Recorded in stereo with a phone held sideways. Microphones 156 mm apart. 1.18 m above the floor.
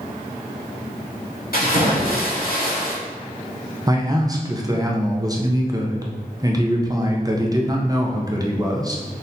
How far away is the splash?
About 1.4 m.